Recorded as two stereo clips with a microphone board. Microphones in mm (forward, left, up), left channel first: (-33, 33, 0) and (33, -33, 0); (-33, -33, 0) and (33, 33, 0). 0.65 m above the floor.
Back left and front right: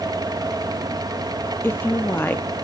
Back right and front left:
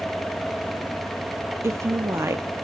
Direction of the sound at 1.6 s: 85° left.